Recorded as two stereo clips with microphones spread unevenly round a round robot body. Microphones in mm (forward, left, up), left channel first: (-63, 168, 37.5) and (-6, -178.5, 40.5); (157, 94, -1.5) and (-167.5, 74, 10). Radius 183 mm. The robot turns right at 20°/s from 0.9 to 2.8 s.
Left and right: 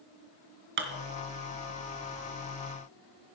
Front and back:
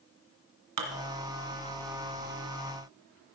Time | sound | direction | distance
0.8 | dishes clattering | 140° right | 1.8 m